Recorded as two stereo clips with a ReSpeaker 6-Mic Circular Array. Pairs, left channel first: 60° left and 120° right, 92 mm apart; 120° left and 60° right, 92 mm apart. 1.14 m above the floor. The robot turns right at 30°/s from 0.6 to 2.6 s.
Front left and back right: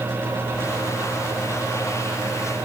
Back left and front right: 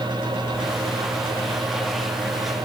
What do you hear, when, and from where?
Only background noise.